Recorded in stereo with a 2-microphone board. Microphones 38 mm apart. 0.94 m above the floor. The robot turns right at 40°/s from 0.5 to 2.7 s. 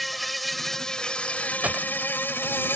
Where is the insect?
Straight ahead; by 2.8 s 90° left.